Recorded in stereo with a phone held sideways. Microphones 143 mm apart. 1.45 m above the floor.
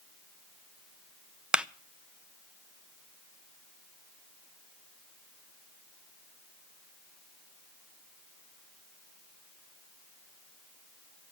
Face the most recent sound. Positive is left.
turn(degrees=-5)  # may be behind; listen again after turning